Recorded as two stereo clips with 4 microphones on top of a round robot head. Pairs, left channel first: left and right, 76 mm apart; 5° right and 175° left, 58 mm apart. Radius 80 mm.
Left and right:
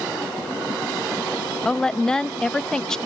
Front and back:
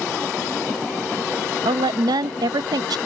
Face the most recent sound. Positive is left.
turn(degrees=175)